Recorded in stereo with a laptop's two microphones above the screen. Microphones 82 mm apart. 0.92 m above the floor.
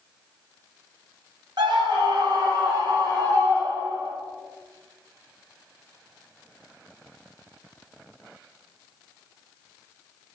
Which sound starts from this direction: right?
A scream, at 1.6 s.